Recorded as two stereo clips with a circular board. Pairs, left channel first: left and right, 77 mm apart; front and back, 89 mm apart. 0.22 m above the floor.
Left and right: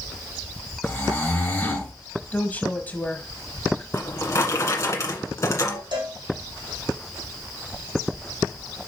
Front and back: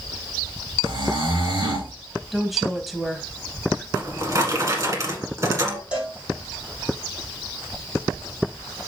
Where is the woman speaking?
90° left, 1.2 m.